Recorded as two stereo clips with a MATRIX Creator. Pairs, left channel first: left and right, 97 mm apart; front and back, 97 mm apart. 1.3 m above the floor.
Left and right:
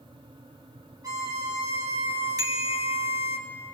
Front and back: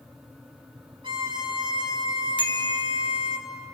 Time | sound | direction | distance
1.0 | a violin | 145° right | 3 m
2.4 | a bicycle bell | 40° right | 2.5 m